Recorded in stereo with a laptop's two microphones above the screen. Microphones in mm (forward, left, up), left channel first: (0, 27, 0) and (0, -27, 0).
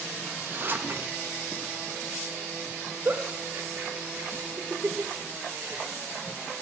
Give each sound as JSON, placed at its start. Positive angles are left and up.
{"t": 0.2, "sound": "a zipper", "side_deg": -40, "distance_m": 0.8}
{"t": 3.0, "sound": "a giggle", "side_deg": -40, "distance_m": 1.1}